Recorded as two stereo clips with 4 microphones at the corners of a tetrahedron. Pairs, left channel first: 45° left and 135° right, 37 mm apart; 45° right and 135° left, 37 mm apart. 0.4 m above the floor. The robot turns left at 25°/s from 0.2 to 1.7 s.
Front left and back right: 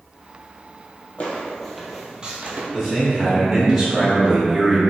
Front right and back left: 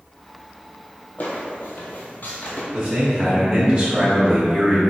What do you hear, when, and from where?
1.2 s footsteps: 5° right, 0.9 m; by 2.6 s 90° right, 0.9 m
2.7 s a man speaking: 150° left, 0.9 m